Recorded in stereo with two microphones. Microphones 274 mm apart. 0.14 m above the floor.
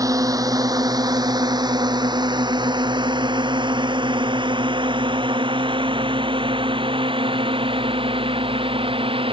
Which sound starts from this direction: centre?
A drone, at 0.0 s.